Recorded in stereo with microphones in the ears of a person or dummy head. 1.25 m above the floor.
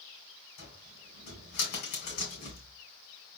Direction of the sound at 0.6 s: 55° left (ahead or behind).